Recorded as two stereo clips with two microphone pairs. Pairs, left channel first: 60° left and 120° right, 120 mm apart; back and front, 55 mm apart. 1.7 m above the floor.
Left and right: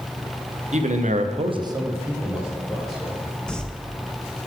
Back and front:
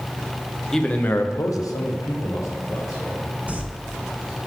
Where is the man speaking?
95° right, 1.2 m; by 3.2 s 150° left, 3 m.